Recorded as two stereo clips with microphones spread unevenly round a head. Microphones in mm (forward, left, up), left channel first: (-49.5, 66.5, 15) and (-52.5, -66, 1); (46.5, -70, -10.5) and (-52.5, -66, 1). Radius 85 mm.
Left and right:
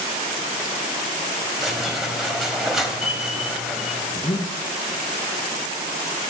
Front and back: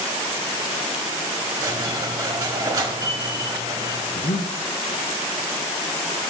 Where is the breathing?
20° left, 0.7 m.